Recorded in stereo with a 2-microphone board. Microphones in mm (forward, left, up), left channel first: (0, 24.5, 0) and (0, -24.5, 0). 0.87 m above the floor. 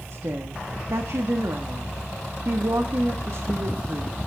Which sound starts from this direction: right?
A woman speaking, at 0.1 s.